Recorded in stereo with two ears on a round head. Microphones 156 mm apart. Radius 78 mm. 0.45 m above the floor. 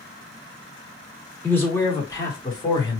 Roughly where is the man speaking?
Centre.